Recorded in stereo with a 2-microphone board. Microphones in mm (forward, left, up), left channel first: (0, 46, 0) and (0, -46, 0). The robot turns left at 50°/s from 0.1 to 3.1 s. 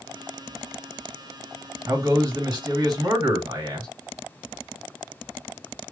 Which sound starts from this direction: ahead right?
A man speaking, at 1.9 s.